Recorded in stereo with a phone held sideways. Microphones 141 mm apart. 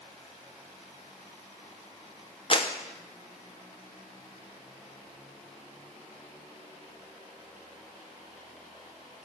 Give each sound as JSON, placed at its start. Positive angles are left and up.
{"t": 2.5, "sound": "a clap", "side_deg": 40, "distance_m": 1.0}